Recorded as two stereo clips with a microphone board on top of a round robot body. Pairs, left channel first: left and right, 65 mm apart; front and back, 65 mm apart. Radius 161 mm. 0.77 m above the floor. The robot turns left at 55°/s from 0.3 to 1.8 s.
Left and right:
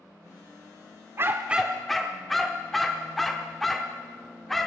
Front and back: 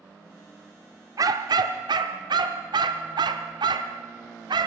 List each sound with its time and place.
1.2 s a dog barking: 145° right, 0.8 m; by 4.7 s straight behind, 0.8 m